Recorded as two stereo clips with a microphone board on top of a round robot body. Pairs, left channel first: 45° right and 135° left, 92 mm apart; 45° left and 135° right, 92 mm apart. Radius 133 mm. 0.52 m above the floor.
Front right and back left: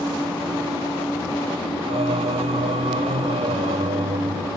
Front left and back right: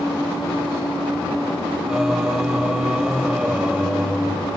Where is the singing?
140° left.